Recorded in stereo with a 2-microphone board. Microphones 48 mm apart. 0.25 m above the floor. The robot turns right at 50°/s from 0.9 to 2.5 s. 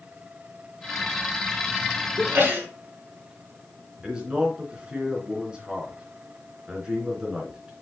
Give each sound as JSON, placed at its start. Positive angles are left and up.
{"t": 2.2, "sound": "a sneeze", "side_deg": -60, "distance_m": 3.5}
{"t": 4.0, "sound": "a man speaking", "side_deg": -20, "distance_m": 3.0}